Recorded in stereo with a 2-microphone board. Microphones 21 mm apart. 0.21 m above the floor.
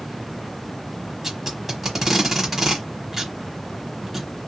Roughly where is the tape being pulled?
Centre.